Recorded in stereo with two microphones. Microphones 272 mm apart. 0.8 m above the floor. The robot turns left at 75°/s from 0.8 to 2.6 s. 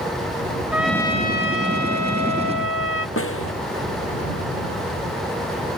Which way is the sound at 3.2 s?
50° left (ahead or behind).